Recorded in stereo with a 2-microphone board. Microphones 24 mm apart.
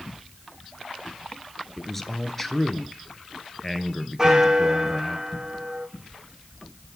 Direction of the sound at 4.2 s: 30° right (ahead or behind).